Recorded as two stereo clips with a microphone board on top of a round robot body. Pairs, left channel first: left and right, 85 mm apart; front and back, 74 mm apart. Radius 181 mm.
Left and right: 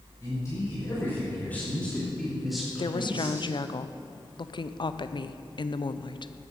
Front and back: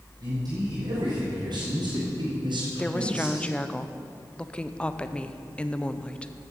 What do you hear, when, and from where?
0.2 s a man speaking: 145° left, 4.5 m; by 3.5 s 155° right, 3 m
2.8 s a woman speaking: 75° left, 0.6 m